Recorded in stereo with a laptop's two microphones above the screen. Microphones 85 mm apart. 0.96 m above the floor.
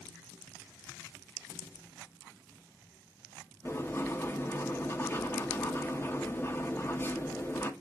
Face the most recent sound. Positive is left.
turn(degrees=30)  # may be behind; listen again after turning